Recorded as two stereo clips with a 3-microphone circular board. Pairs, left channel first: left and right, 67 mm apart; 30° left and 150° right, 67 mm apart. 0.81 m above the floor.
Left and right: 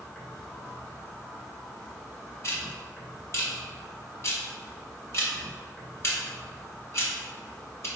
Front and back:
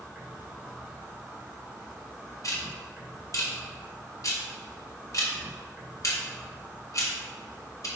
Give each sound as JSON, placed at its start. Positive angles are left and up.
{"t": 0.0, "sound": "an insect", "azimuth_deg": 160, "distance_m": 1.8}
{"t": 2.4, "sound": "ticking", "azimuth_deg": 50, "distance_m": 1.2}